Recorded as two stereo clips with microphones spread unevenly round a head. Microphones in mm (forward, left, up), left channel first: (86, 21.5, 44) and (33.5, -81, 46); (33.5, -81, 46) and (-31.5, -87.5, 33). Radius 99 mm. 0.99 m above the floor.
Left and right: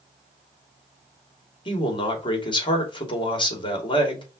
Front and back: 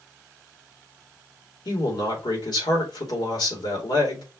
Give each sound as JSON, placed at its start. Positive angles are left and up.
{"t": 1.6, "sound": "a man speaking", "azimuth_deg": 20, "distance_m": 2.5}